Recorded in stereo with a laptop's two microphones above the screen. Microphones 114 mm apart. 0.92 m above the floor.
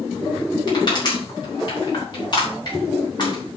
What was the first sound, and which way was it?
Crushing, 40° left (ahead or behind).